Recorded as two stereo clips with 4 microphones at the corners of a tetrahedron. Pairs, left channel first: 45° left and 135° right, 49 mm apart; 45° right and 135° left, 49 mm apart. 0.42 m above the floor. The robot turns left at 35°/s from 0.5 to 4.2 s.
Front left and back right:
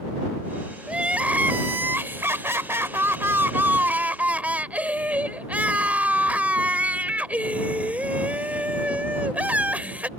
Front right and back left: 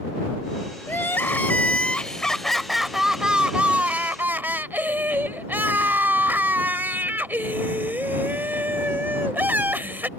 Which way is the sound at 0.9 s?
70° right.